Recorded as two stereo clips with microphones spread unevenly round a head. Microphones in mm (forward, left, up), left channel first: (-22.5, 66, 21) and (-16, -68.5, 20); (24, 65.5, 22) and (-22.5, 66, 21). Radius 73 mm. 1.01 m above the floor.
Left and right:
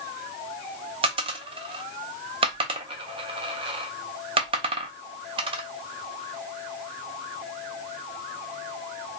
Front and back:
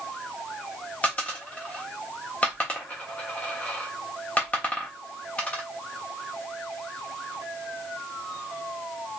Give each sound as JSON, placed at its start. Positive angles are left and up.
{"t": 1.0, "sound": "a dropped coin", "azimuth_deg": -60, "distance_m": 0.5}